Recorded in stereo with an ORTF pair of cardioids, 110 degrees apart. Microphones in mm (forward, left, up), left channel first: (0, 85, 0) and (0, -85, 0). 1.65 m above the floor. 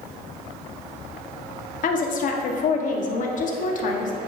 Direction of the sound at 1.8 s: 50° left.